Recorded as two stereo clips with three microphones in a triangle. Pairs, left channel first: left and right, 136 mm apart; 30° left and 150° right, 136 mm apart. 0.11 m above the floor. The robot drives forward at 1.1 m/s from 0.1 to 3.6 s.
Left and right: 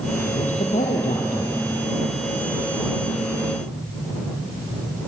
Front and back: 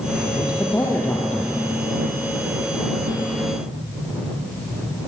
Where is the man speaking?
85° left, 3.5 m; by 1.6 s 110° left, 3.5 m.